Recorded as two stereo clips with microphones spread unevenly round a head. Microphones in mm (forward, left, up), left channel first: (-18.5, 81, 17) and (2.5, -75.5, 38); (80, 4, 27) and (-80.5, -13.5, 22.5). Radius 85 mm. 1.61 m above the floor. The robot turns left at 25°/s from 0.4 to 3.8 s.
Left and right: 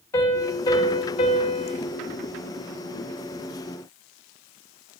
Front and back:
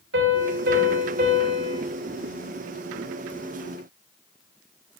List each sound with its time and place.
0.1 s a piano: 170° left, 3 m; by 1.8 s 135° left, 3 m